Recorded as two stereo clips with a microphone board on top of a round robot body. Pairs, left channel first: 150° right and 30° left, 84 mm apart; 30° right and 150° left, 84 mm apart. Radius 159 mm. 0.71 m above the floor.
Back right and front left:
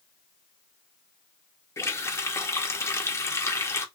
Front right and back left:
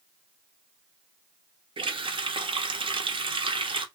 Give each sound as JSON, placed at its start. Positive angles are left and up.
{"t": 1.8, "sound": "a running tap", "azimuth_deg": 150, "distance_m": 1.0}